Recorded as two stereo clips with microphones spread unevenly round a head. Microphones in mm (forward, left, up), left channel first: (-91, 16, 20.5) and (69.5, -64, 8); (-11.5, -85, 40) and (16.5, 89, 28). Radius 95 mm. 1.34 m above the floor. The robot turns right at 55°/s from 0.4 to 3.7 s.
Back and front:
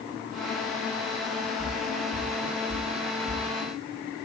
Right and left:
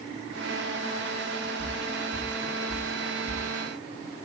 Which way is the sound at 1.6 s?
105° right.